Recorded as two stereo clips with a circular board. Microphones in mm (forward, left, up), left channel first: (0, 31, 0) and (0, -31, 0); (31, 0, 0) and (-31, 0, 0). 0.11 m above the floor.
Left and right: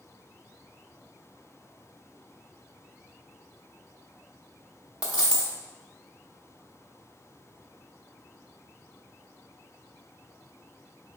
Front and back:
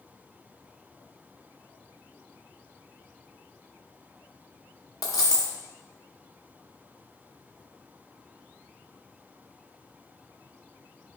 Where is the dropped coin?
15° right, 1.1 m.